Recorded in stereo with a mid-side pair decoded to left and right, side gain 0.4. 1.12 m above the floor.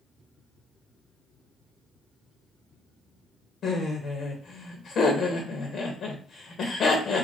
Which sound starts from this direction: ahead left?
Laughter, at 3.6 s.